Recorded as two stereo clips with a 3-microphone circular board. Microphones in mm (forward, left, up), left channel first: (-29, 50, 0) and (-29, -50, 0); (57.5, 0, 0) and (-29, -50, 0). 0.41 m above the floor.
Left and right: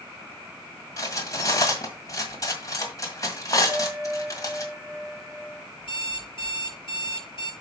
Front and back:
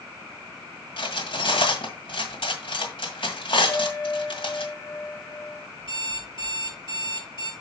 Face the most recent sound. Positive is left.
turn(degrees=60)